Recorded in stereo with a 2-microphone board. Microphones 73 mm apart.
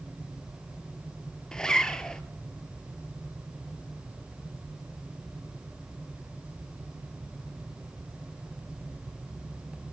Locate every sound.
1.5 s a zipper: 10° left (ahead or behind), 0.6 m